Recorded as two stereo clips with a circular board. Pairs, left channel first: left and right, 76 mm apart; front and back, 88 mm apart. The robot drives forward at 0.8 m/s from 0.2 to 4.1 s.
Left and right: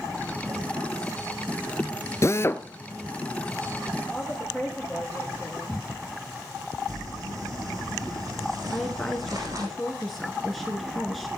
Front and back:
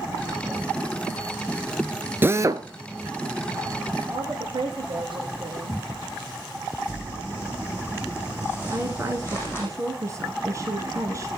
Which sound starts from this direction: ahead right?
Crumpling, at 6.9 s.